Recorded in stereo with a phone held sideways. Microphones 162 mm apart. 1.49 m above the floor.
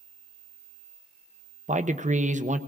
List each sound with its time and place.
1.7 s a man speaking: 45° right (ahead or behind), 0.6 m